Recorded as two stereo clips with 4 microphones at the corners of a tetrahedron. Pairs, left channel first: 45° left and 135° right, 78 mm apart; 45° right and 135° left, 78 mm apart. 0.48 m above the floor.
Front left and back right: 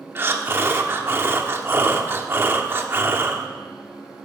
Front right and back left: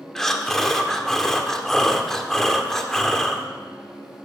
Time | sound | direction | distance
0.1 | breathing | 125° right | 0.8 m